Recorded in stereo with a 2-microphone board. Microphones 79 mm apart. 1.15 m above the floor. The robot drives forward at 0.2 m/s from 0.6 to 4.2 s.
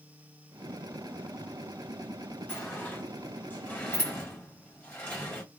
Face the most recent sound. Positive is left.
turn(degrees=20)  # may be behind; listen again after turning